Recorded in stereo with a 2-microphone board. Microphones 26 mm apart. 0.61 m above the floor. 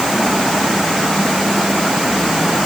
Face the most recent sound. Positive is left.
No sound to turn to.